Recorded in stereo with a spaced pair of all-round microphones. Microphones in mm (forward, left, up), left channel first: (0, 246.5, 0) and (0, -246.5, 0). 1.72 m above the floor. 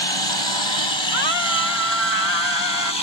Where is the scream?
60° left (ahead or behind).